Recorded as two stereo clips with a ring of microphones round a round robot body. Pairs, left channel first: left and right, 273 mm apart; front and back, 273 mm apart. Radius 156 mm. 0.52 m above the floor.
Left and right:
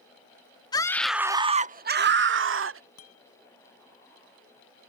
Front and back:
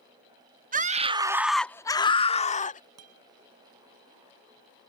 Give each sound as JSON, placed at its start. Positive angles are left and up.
{"t": 0.7, "sound": "a scream", "azimuth_deg": 155}
{"t": 3.0, "sound": "a guitar", "azimuth_deg": 140}